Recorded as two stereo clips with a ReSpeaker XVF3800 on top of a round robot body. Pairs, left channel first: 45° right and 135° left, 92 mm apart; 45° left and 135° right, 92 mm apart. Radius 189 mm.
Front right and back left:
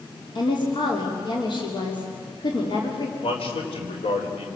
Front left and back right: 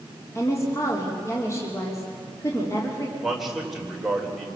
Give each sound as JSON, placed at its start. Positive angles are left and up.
{"t": 0.3, "sound": "a woman speaking", "azimuth_deg": -15, "distance_m": 3.0}
{"t": 3.2, "sound": "a man speaking", "azimuth_deg": -50, "distance_m": 4.0}